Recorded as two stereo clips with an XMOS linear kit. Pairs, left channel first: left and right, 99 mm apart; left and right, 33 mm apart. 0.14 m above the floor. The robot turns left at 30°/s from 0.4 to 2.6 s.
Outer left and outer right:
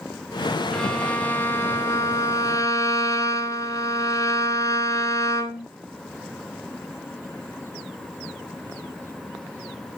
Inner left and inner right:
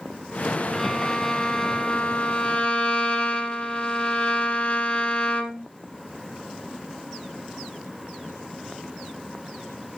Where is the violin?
165° left, 1.4 m; by 5.7 s 110° left, 1.4 m.